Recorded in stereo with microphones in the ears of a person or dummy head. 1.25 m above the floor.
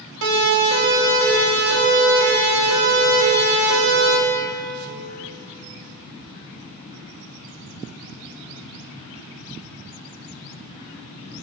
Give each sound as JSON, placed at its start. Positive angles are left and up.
{"t": 0.2, "sound": "a siren", "side_deg": -65, "distance_m": 7.5}